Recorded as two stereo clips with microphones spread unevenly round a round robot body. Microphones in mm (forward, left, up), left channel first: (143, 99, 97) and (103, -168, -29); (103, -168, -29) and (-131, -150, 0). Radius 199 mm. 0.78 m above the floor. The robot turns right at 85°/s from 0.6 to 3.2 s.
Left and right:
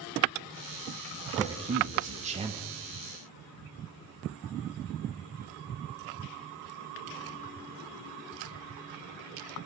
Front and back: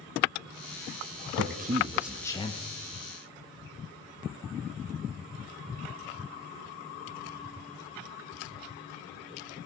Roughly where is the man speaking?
Behind right.